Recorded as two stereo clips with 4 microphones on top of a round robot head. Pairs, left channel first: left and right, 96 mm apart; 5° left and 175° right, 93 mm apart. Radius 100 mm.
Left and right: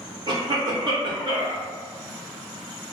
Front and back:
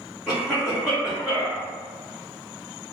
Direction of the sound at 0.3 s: 90° right.